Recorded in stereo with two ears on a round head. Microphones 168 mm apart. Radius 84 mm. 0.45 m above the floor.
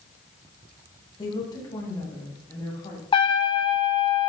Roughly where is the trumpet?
Left.